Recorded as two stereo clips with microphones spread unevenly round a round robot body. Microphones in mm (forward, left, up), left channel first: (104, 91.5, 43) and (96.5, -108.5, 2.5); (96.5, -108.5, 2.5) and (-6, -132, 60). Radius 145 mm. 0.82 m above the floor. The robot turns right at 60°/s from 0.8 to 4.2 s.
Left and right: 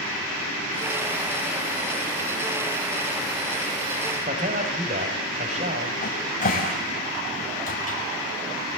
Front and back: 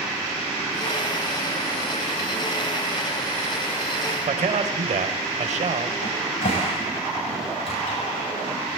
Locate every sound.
4.3 s a man speaking: 160° right, 3.5 m
6.0 s a cupboard door: 40° left, 6 m